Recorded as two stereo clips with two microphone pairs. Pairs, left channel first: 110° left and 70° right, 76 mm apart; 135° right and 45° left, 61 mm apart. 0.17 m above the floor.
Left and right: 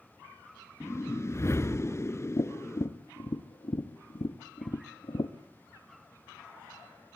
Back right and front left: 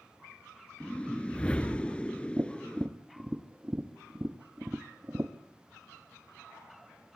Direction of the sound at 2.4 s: 105° left.